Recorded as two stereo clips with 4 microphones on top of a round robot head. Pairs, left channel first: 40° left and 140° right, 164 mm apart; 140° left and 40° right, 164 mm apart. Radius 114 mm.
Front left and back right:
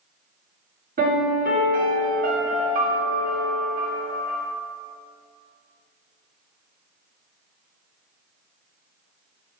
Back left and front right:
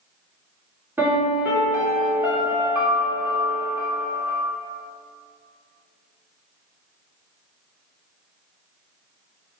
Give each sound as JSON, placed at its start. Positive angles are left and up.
{"t": 1.0, "sound": "a piano", "azimuth_deg": -115, "distance_m": 3.0}